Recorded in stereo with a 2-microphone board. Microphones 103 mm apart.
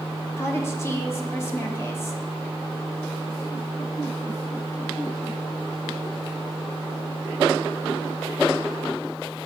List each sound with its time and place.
0.4 s a woman speaking: 25° left (ahead or behind), 1.0 m